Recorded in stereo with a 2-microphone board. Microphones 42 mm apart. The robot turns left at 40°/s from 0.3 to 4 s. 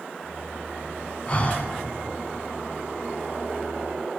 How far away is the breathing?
About 1.0 m.